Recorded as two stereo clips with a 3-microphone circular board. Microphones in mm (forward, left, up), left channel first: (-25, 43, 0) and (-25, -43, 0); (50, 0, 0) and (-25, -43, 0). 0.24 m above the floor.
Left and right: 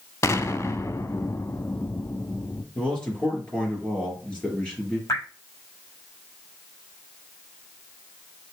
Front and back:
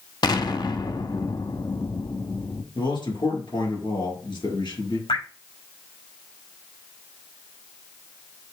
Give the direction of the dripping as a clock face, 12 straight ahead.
11 o'clock.